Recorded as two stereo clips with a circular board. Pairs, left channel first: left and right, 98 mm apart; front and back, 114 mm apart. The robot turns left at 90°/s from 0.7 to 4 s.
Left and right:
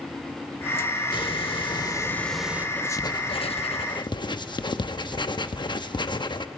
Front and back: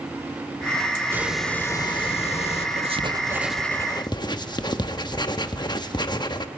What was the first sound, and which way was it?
A hiss, 115° left.